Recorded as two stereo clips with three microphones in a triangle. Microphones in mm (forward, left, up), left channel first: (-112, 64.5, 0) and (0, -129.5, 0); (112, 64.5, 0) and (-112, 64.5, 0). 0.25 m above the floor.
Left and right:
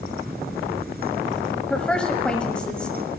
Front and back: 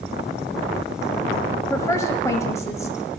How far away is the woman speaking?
About 1.2 m.